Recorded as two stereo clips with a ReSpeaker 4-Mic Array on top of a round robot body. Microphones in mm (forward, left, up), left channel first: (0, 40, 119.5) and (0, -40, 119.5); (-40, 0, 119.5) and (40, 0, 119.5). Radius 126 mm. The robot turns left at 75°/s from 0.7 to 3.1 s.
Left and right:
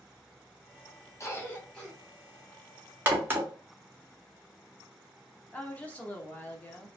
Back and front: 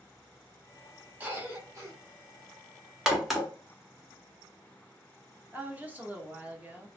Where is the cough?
65° left, 1.3 m; by 1.9 s 10° left, 1.3 m.